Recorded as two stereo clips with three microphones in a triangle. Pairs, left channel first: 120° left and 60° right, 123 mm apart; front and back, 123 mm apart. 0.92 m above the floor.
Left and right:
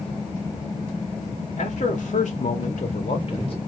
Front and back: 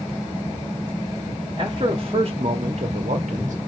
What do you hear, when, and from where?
1.6 s a man speaking: 130° left, 1.7 m; by 3.6 s 165° left, 1.1 m